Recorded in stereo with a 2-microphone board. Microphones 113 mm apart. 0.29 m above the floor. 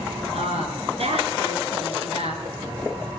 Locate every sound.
0.3 s a woman speaking: 70° right (ahead or behind), 4.5 m